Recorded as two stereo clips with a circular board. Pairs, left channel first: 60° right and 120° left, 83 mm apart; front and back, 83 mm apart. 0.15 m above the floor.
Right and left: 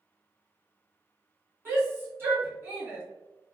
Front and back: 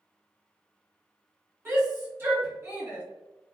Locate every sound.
1.6 s a shout: 155° left, 1.5 m